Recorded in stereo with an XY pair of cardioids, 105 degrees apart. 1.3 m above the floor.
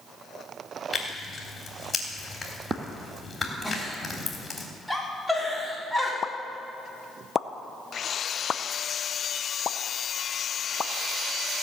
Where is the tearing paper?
25° left, 3.5 m.